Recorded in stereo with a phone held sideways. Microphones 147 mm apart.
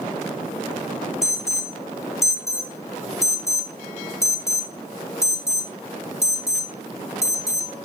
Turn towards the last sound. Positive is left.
turn(degrees=20)  # may be behind; listen again after turning